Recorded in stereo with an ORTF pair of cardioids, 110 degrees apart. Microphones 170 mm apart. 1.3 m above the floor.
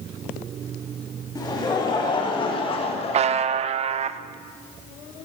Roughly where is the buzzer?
Ahead right.